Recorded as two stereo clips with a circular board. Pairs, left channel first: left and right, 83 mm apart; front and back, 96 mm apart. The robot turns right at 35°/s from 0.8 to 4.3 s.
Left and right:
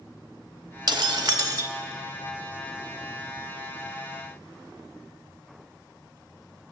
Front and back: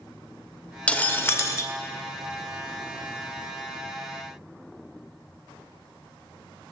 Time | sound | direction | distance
0.9 | breaking glass | 75° right | 0.8 m